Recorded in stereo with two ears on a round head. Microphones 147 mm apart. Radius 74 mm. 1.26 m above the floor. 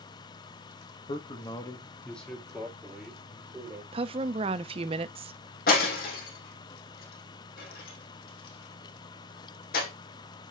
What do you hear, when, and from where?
1.1 s a man speaking: 40° left (ahead or behind), 1.6 m; by 3.8 s 15° right (ahead or behind), 4 m
3.9 s a woman speaking: 35° right (ahead or behind), 0.5 m
5.7 s breaking glass: 65° left (ahead or behind), 3.5 m